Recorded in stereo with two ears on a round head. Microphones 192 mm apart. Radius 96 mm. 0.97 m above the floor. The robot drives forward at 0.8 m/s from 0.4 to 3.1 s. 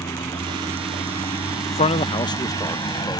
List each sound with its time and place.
0.0 s a vehicle: 15° left (ahead or behind); by 3.2 s 20° left (ahead or behind)
1.7 s a man speaking: 30° left (ahead or behind); by 3.2 s 15° left (ahead or behind)